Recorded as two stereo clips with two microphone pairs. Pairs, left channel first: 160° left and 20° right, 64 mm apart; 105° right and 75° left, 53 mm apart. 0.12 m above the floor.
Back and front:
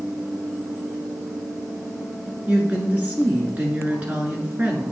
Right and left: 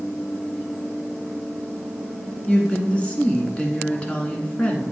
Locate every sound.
2.5 s a woman speaking: 65° right, 1.3 m